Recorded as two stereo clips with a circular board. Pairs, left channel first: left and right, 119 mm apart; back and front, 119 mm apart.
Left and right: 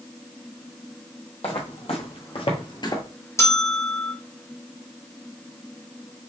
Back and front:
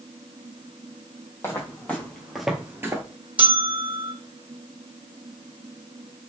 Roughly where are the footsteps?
Behind left.